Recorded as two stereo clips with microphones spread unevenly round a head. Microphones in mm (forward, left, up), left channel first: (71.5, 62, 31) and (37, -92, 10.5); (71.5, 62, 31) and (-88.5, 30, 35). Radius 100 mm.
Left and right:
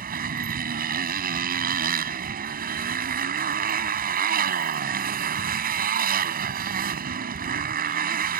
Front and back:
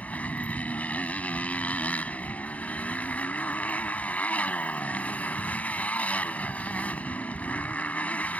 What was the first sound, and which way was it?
A motorcycle, 70° right.